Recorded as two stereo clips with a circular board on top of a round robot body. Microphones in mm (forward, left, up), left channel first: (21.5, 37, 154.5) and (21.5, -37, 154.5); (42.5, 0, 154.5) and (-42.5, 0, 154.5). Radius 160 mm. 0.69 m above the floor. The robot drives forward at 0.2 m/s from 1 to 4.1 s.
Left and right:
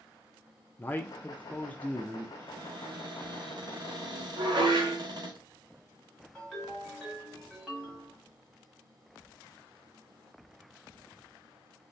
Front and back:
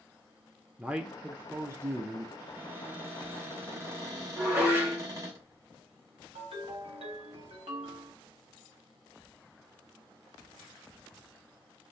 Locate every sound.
0.8 s a man speaking: 120° left, 0.6 m; by 2.3 s 150° left, 0.7 m
2.4 s a cupboard door: 105° right, 1.0 m; by 5.4 s 125° right, 1.1 m
4.4 s dishes clattering: 115° right, 1.1 m
6.3 s a ringtone: 175° left, 1.2 m